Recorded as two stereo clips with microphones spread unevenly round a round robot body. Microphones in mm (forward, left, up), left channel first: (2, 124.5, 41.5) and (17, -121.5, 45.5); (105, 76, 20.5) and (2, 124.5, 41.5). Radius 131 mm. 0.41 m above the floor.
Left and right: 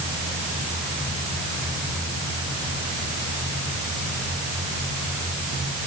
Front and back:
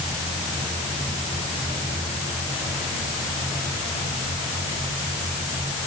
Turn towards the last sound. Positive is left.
No sound to turn to.